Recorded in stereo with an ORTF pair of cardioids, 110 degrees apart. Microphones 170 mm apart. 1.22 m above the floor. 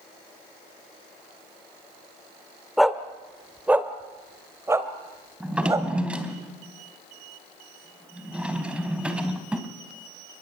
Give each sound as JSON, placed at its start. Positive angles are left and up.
{"t": 2.8, "sound": "a dog barking", "azimuth_deg": 0, "distance_m": 1.9}
{"t": 5.4, "sound": "a drawer", "azimuth_deg": -5, "distance_m": 3.5}